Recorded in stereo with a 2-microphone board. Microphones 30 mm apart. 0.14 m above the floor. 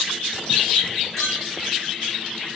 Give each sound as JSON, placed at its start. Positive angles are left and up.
{"t": 1.2, "sound": "a clink", "side_deg": 15, "distance_m": 7.0}